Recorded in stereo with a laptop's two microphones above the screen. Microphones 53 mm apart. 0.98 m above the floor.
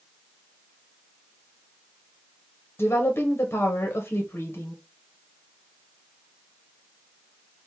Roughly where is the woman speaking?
Left.